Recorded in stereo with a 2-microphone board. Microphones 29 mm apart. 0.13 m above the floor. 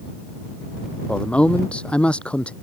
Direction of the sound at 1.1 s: 40° left (ahead or behind).